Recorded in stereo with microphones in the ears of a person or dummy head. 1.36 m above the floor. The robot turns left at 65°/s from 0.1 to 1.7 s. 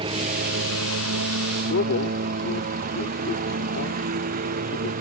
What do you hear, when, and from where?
0.0 s a lawn mower: 30° right; by 5.0 s 135° right
1.6 s a man speaking: 55° left (ahead or behind); by 4.9 s 60° left (ahead or behind)